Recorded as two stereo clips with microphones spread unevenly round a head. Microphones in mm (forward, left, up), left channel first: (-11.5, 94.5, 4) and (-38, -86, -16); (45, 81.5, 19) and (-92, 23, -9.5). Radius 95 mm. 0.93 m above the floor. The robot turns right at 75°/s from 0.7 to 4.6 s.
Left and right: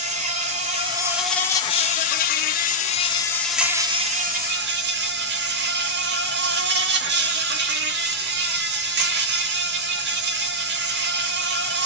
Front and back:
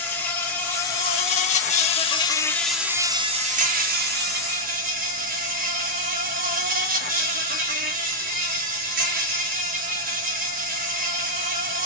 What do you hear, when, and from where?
0.0 s an insect: 45° right, 1.0 m; by 11.9 s 115° right, 1.0 m